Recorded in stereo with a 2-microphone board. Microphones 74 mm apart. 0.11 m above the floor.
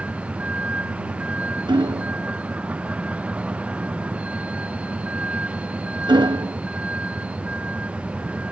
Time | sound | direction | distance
0.0 | a vehicle | 15° right (ahead or behind) | ?
1.7 | hammering | 85° right | ?